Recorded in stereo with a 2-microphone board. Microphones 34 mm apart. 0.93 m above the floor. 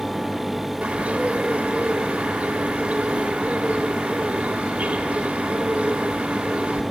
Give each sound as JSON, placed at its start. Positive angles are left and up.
{"t": 0.8, "sound": "a bird", "side_deg": -50, "distance_m": 2.5}